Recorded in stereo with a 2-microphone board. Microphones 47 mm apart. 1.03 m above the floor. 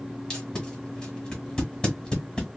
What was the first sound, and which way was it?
Tape being pulled, 15° left (ahead or behind).